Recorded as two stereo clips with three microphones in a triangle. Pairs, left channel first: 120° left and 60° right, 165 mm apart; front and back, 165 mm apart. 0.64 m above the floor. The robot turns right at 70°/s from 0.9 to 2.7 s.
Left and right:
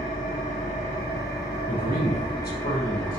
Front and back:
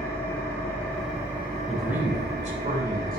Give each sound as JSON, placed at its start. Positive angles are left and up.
{"t": 0.0, "sound": "an engine running", "azimuth_deg": 80, "distance_m": 3.0}
{"t": 1.7, "sound": "a man speaking", "azimuth_deg": 80, "distance_m": 3.0}